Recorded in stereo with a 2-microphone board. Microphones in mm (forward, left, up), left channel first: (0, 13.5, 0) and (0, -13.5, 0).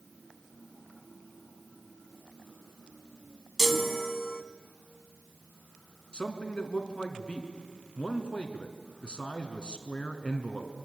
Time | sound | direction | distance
3.6 | a chime | 5° left (ahead or behind) | 1.0 m
6.1 | a man speaking | 35° left (ahead or behind) | 2.5 m